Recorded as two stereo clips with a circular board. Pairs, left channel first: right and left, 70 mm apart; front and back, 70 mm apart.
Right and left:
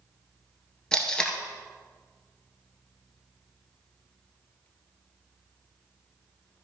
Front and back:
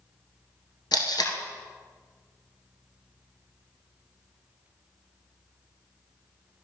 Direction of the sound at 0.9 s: 10° right.